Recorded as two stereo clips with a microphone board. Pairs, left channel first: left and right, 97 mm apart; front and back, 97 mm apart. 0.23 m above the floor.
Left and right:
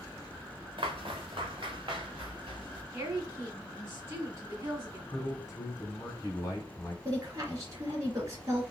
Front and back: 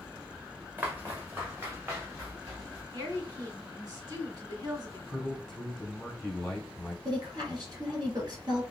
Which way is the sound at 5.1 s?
85° left.